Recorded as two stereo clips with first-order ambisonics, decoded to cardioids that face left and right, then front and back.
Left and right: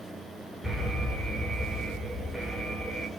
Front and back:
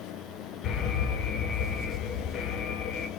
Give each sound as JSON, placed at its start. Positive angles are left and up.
{"t": 0.6, "sound": "an alarm", "azimuth_deg": 0, "distance_m": 2.5}